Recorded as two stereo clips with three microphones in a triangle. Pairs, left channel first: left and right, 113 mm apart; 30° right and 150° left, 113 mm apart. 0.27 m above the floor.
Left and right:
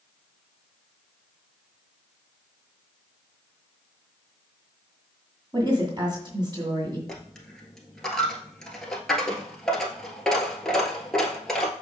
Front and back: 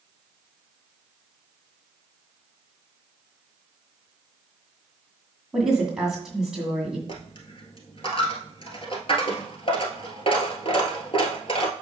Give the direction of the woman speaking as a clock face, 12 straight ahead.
4 o'clock.